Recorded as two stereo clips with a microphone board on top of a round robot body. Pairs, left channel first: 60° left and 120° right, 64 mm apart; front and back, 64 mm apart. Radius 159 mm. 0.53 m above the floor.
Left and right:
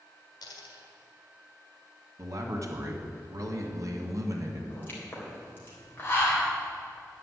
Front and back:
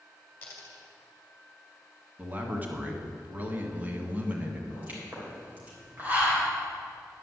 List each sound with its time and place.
0.4 s a dropped coin: 70° left, 1.7 m
2.2 s a man speaking: 120° right, 1.8 m
4.7 s a pop: 115° left, 3.5 m